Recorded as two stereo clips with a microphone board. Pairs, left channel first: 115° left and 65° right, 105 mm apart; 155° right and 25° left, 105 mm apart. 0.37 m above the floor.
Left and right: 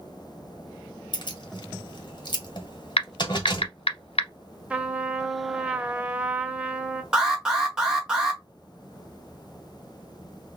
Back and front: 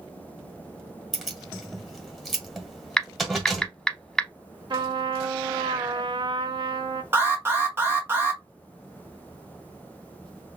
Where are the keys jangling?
110° left, 1.2 m.